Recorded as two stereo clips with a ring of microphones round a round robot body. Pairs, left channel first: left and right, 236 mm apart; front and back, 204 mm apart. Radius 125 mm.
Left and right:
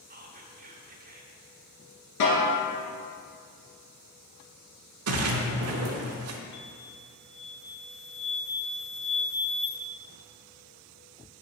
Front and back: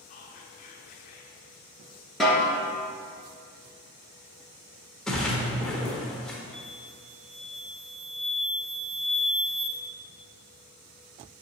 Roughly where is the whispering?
Ahead right.